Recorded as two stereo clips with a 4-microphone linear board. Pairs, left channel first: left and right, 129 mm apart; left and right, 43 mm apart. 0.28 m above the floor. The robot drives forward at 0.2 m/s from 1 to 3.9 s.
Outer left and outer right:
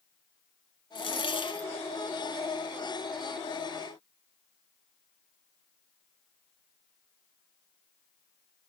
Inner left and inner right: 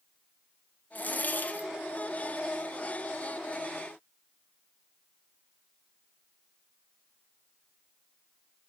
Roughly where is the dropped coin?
Left.